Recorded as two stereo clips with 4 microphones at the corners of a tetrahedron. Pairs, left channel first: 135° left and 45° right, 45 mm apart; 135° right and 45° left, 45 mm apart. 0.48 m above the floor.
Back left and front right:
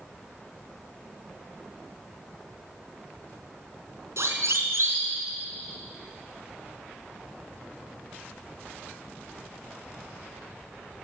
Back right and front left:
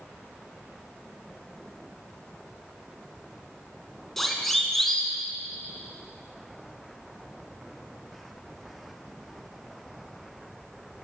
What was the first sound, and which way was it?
A siren, 50° right.